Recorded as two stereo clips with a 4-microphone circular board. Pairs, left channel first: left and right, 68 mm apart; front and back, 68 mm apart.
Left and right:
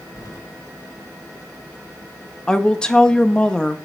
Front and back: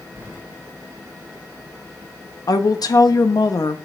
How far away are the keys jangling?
About 2 m.